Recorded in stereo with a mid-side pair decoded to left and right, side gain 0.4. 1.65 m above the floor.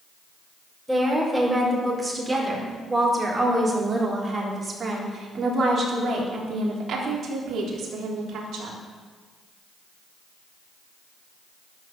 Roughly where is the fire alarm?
I don't hear a fire alarm.